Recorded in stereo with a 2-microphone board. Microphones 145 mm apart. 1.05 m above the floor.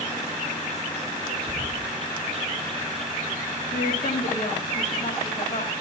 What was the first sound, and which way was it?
A bird, 40° right (ahead or behind).